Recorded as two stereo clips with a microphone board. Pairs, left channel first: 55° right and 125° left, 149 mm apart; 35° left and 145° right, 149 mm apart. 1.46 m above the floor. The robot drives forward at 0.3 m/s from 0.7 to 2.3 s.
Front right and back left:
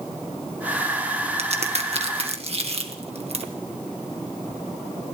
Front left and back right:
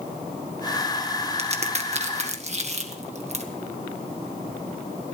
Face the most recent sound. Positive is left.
turn(degrees=170)